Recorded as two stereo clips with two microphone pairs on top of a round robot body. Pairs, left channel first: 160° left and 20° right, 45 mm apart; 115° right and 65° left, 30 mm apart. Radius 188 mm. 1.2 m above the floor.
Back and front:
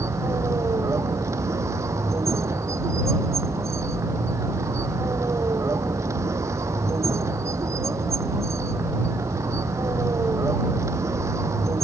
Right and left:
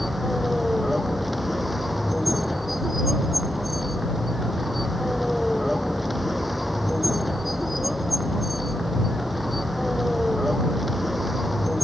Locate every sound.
0.0 s a vehicle: 20° right